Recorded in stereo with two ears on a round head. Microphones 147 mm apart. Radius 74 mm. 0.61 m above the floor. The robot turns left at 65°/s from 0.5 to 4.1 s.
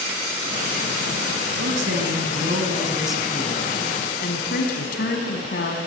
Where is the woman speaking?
75° right, 4.5 m; by 5.8 s 115° left, 4.5 m.